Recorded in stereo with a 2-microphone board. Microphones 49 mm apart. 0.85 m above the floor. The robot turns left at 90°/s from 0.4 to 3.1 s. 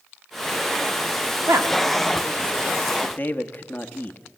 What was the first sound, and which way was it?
A woman speaking, 65° right (ahead or behind).